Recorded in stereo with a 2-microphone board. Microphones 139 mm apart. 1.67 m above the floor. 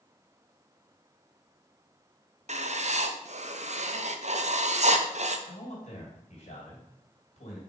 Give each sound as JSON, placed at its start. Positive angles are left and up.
{"t": 2.5, "sound": "writing", "side_deg": -55, "distance_m": 0.6}
{"t": 5.5, "sound": "a man speaking", "side_deg": 55, "distance_m": 3.0}